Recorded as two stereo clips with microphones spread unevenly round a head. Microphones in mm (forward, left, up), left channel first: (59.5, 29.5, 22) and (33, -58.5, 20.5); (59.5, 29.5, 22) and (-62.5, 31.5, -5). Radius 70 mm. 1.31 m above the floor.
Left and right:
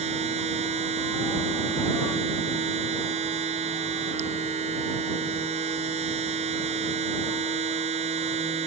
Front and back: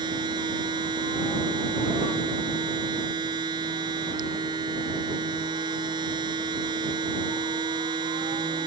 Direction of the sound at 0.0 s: 115° right.